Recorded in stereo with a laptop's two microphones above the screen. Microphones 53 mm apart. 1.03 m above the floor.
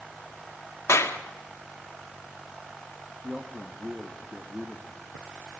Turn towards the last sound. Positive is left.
turn(degrees=-10)  # may be behind; listen again after turning